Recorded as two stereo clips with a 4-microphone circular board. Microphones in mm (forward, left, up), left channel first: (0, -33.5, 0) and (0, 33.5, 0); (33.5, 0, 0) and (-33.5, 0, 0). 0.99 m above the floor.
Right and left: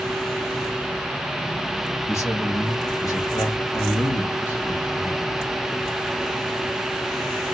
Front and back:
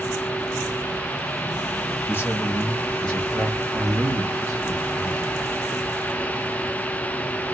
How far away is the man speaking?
About 1.8 m.